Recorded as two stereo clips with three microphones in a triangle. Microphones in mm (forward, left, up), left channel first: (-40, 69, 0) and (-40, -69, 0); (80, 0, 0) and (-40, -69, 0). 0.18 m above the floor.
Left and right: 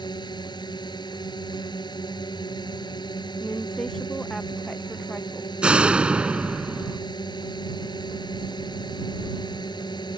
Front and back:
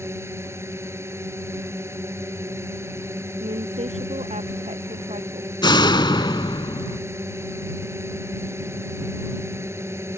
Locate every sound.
0.0 s a drone: 140° left
3.4 s a woman speaking: 175° left
5.6 s a door slam: 10° right